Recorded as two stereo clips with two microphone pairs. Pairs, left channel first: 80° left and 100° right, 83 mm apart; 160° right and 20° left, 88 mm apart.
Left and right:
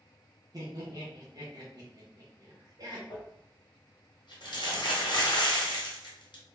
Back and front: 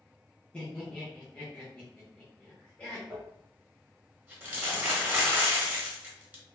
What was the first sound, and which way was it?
Laughter, 85° right.